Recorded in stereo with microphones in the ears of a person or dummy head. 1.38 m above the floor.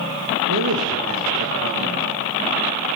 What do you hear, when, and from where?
0.5 s a man speaking: 75° right (ahead or behind), 2.5 m